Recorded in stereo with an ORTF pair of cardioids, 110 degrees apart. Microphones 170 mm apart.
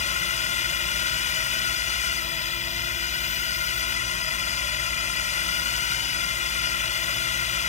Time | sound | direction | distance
0.0 | a drone | 45° left | ?